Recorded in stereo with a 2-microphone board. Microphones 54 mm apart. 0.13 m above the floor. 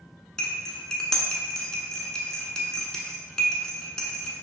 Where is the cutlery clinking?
10° left (ahead or behind), 0.8 m.